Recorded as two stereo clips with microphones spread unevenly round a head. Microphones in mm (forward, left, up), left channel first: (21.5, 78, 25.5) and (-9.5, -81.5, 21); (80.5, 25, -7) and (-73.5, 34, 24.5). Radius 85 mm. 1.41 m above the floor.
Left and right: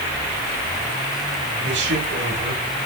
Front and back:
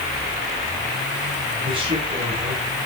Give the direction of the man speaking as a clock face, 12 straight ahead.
4 o'clock.